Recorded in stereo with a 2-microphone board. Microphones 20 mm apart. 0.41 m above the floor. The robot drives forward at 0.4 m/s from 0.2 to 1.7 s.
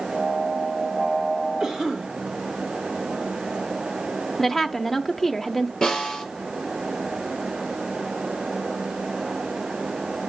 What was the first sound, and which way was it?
A cough, 45° right (ahead or behind).